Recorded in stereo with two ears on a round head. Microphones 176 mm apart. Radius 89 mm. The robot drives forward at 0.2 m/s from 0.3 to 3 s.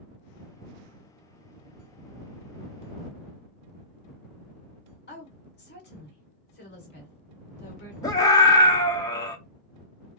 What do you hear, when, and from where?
5.1 s a woman speaking: 55° left (ahead or behind), 1.9 m
8.0 s a scream: 20° left (ahead or behind), 0.6 m